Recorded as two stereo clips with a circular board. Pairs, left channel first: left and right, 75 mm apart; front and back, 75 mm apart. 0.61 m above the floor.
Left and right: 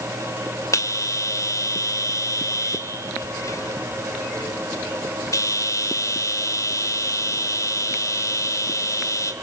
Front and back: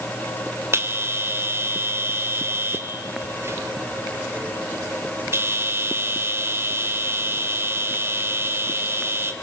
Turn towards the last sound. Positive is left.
turn(degrees=130)